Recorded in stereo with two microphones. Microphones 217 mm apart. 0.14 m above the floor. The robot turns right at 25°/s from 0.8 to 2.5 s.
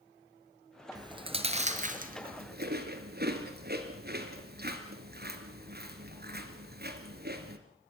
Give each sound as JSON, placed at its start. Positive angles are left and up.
{"t": 0.9, "sound": "chewing", "side_deg": -20, "distance_m": 2.0}